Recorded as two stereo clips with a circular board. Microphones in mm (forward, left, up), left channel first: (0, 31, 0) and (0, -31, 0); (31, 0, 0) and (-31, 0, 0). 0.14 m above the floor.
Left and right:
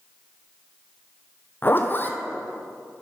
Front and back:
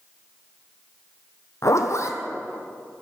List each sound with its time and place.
1.6 s a zipper: 35° left, 0.9 m